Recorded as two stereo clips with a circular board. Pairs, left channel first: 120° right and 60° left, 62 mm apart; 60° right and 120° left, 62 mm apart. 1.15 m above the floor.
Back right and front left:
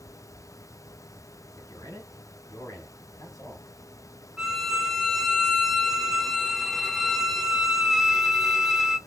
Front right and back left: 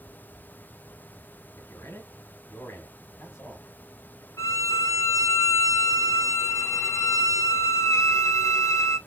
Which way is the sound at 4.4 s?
25° right.